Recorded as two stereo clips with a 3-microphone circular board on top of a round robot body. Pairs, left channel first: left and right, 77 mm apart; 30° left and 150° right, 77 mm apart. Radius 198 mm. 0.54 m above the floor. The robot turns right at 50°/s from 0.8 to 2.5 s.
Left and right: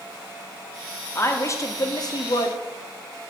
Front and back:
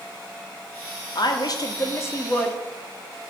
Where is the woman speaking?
35° left, 1.7 m; by 2.6 s 100° left, 1.7 m.